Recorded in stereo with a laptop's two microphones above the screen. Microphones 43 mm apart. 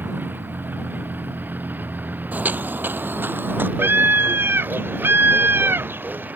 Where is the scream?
70° right (ahead or behind).